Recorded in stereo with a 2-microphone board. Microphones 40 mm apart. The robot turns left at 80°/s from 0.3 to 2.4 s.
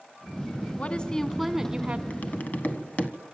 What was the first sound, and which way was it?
A woman speaking, 55° left.